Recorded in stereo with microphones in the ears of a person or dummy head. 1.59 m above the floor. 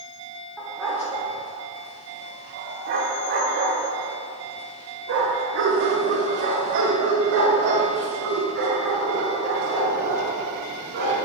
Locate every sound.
0.6 s a dog barking: centre (ahead or behind), 1.6 m; by 11.2 s 60° right (ahead or behind), 5 m